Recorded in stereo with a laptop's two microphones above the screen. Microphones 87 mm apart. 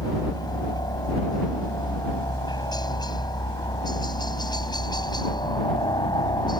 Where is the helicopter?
55° left (ahead or behind); by 6.6 s 60° left (ahead or behind).